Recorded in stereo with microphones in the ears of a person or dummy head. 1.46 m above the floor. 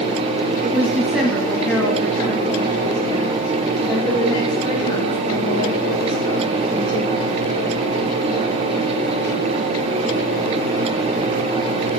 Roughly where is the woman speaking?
Centre.